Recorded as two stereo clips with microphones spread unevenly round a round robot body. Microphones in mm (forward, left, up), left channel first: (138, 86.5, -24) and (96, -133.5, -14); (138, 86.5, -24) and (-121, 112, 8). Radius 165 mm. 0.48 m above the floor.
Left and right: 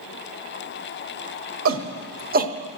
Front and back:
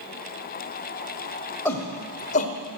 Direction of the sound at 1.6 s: 90° right.